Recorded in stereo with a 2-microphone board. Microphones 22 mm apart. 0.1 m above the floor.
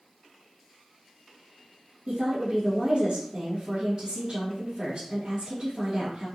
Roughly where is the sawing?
No sawing in this recording.